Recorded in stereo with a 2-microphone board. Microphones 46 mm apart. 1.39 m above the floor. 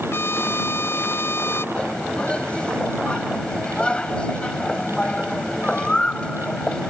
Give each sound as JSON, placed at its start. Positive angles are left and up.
{"t": 0.1, "sound": "a trumpet", "side_deg": 55}
{"t": 1.8, "sound": "a bird", "side_deg": 20}